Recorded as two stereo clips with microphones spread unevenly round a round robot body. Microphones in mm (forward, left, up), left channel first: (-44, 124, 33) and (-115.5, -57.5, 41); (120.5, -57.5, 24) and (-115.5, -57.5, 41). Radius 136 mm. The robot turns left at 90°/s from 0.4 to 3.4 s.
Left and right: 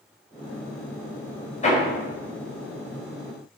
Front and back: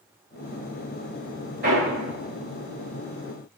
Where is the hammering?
125° left, 4 m; by 1.8 s 105° left, 4 m.